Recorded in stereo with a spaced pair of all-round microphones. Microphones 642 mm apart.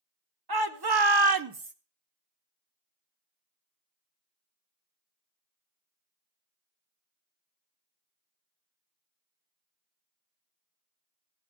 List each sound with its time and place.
0.5 s a shout: 35° right (ahead or behind), 1.2 m; by 1.7 s 15° right (ahead or behind), 0.5 m